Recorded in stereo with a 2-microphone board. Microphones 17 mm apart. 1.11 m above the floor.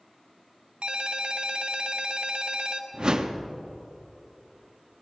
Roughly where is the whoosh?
Right.